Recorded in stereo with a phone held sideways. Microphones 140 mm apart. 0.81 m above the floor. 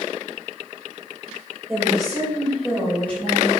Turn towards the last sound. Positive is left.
turn(degrees=15)  # may be behind; listen again after turning